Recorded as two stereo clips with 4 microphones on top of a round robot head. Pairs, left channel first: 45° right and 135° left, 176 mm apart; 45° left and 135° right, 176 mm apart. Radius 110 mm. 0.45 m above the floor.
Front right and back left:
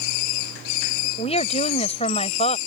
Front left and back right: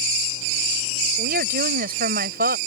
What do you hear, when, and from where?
1.2 s a woman speaking: 100° right